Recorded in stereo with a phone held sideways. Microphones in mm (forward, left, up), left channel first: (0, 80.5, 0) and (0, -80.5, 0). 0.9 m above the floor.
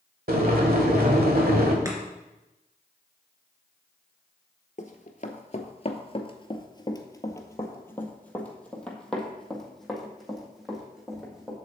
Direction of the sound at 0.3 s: 70° right (ahead or behind).